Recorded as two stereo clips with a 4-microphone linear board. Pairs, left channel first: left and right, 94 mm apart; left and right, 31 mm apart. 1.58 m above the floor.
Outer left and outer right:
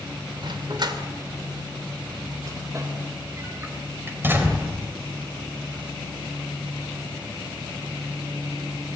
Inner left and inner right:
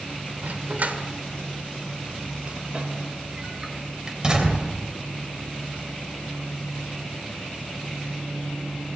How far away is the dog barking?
About 2.5 m.